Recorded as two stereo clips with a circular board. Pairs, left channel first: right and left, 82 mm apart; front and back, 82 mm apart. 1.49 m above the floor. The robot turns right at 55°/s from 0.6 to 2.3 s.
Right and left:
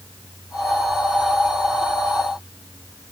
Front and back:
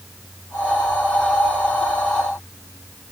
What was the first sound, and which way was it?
Only background noise.